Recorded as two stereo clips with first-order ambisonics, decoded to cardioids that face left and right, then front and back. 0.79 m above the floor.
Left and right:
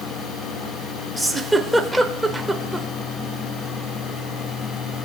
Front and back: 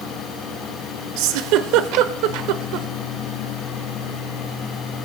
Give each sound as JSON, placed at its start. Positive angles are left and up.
{"t": 1.2, "sound": "a giggle", "azimuth_deg": 180, "distance_m": 0.8}